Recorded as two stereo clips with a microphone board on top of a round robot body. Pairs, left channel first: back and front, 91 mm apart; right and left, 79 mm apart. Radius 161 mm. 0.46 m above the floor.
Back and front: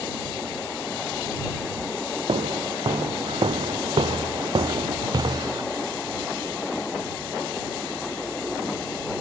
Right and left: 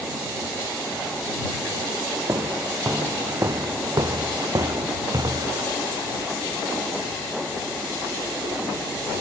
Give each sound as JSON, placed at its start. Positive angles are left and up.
{"t": 2.3, "sound": "footsteps", "azimuth_deg": 30}